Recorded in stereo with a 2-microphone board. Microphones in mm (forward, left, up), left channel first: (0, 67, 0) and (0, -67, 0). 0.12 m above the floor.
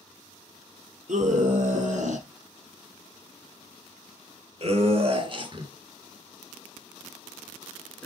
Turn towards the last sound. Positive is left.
turn(degrees=10)  # may be behind; listen again after turning